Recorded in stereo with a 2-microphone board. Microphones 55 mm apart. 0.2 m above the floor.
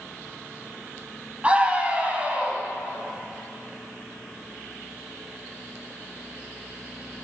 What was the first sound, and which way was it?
A scream, 25° right (ahead or behind).